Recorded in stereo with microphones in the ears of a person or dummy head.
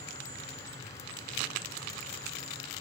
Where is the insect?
15° left (ahead or behind), 1.1 m.